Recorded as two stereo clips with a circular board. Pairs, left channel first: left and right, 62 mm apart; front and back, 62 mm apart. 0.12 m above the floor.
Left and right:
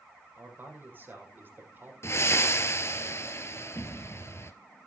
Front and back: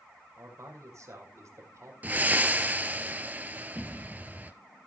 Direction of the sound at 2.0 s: 125° left.